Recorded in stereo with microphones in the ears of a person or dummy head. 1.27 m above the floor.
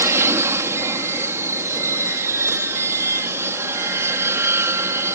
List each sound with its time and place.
0.0 s an aircraft: 10° right (ahead or behind)